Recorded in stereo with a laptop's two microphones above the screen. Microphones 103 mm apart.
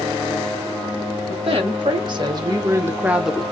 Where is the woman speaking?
55° right (ahead or behind), 1.3 m; by 3.4 s 5° left (ahead or behind), 0.6 m.